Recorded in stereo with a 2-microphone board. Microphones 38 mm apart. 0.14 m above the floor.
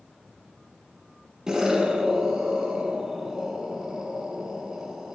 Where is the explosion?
15° right (ahead or behind), 1.3 m.